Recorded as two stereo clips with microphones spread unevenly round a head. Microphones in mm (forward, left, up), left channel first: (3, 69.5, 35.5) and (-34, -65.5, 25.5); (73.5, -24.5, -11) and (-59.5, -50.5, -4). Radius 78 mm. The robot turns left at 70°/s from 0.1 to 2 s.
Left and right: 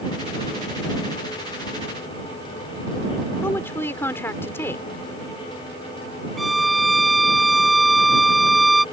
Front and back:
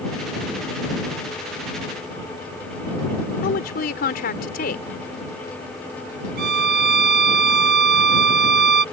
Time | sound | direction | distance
3.4 | a woman speaking | straight ahead | ?
6.4 | a violin | 165° left | ?